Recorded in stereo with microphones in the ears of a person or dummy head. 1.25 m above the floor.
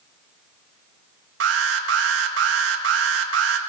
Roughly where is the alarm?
Right.